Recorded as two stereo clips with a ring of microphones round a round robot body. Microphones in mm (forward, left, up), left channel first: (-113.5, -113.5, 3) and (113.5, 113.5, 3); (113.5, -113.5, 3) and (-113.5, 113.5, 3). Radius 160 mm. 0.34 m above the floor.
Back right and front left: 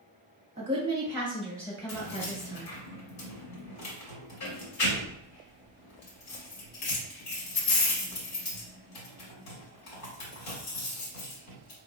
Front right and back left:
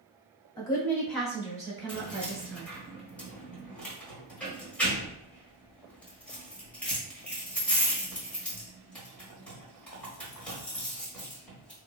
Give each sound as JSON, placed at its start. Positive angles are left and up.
{"t": 0.6, "sound": "a woman speaking", "azimuth_deg": 10, "distance_m": 1.2}
{"t": 1.9, "sound": "keys jangling", "azimuth_deg": -130, "distance_m": 1.2}